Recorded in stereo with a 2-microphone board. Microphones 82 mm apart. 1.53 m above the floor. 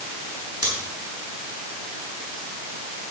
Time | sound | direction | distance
0.6 | scissors | 50° right (ahead or behind) | 7.5 m